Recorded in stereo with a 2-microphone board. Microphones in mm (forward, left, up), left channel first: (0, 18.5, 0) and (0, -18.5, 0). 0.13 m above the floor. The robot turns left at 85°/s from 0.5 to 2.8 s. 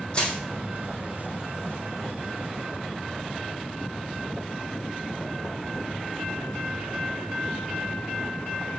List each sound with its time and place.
0.1 s crushing: 35° left (ahead or behind), 3.5 m